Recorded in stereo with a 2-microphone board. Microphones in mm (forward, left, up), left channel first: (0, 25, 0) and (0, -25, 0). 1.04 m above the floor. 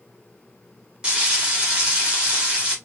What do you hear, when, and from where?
1.0 s frying: 20° right (ahead or behind), 2 m